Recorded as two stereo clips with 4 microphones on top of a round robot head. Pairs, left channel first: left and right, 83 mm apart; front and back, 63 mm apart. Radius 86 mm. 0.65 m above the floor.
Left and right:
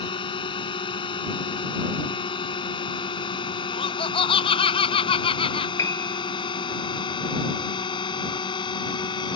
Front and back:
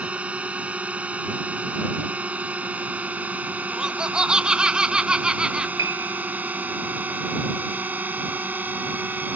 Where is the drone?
110° left; by 9.4 s 115° left.